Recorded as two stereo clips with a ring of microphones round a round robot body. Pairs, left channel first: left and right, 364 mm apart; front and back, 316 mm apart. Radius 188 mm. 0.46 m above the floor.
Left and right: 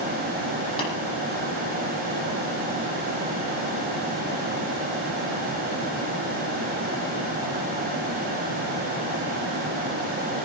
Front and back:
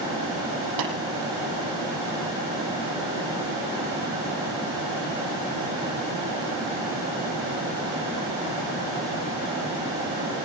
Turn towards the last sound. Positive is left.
turn(degrees=165)